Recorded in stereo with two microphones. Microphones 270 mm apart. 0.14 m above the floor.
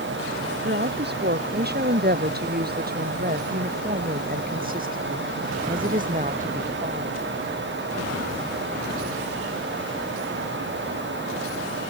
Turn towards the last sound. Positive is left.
turn(degrees=-30)  # may be behind; listen again after turning